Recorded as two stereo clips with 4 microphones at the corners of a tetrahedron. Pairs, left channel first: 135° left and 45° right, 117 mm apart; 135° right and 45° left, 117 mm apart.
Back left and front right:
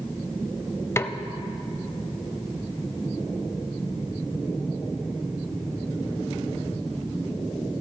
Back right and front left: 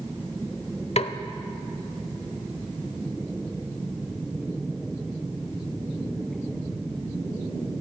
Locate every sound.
1.0 s a snare drum: 160° right, 0.5 m